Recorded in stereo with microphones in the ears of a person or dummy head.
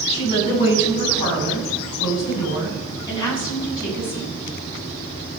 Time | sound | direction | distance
0.1 | a woman speaking | 35° left (ahead or behind) | 7 m